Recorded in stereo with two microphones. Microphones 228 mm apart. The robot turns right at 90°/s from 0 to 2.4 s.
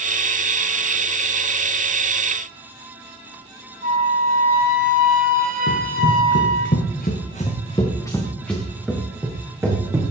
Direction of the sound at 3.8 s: 35° right (ahead or behind).